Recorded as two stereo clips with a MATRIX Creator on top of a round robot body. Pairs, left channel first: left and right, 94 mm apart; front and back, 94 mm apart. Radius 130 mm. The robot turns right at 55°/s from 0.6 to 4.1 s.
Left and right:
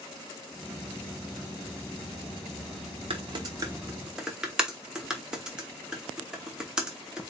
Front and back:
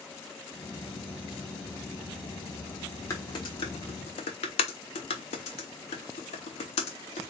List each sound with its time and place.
3.1 s typing on a keyboard: 60° right, 0.8 m; by 7.3 s 5° right, 0.8 m